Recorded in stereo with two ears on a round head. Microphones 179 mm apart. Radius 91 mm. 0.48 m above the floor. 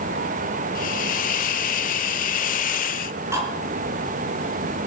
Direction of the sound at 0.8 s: 45° left (ahead or behind).